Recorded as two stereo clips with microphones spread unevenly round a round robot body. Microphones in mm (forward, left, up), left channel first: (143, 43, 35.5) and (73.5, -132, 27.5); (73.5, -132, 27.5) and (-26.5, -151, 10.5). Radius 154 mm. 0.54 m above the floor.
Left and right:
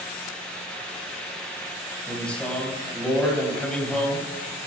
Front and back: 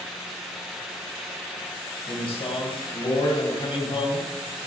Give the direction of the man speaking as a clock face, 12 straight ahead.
1 o'clock.